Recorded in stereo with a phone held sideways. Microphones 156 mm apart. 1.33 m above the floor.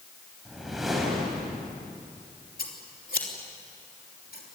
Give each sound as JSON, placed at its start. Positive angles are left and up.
{"t": 0.5, "sound": "a whoosh", "side_deg": 0, "distance_m": 6.0}
{"t": 2.6, "sound": "scissors", "side_deg": 70, "distance_m": 3.0}